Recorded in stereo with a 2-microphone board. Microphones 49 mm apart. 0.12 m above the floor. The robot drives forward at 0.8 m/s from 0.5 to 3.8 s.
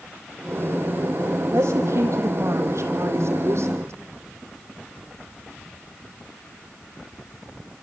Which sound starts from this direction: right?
A woman speaking, at 1.5 s.